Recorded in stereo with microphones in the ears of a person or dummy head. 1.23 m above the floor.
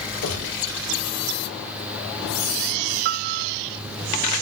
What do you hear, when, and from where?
0.2 s a gunshot: 80° left, 8 m
3.0 s a piano: 55° right (ahead or behind), 1.2 m